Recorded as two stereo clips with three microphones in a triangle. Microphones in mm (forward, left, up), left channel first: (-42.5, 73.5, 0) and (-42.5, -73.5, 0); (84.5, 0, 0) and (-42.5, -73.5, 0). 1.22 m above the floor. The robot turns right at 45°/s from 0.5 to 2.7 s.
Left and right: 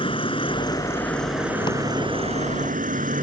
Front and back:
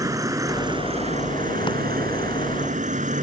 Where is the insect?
145° left; by 3.2 s 120° right.